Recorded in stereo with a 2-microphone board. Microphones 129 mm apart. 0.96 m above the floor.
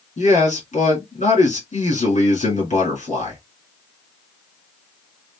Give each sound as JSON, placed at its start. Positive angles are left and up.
{"t": 0.2, "sound": "a man speaking", "side_deg": 70, "distance_m": 2.0}